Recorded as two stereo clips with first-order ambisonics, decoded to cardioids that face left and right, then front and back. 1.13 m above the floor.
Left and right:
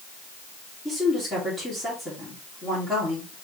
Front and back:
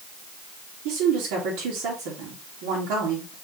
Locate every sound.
0.8 s a woman speaking: 170° left, 2 m